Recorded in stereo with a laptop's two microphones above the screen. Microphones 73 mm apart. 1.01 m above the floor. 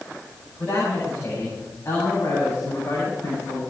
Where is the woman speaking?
30° left (ahead or behind), 8 m.